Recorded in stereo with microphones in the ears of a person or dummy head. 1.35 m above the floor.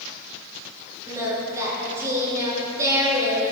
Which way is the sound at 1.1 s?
20° right (ahead or behind).